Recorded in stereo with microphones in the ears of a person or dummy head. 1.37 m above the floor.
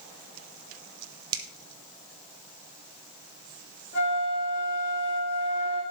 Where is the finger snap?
35° right (ahead or behind), 1.4 m.